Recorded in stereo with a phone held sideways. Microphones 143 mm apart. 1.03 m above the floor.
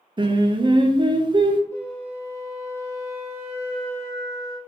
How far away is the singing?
About 0.6 m.